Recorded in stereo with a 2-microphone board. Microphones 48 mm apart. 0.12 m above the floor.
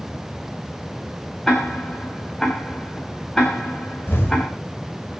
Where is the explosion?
55° left (ahead or behind), 5.5 m.